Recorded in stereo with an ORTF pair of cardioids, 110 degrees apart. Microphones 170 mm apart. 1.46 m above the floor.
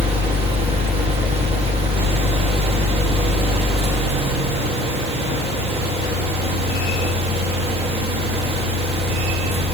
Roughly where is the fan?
Ahead right.